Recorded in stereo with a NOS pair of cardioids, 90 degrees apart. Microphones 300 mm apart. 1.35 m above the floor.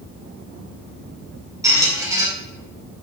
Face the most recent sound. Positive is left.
turn(degrees=-10)